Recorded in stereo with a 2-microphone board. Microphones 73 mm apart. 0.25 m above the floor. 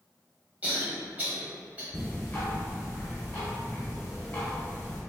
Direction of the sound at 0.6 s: 25° right (ahead or behind).